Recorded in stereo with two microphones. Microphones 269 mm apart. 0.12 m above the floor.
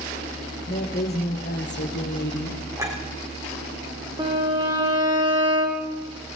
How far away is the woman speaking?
About 3.5 m.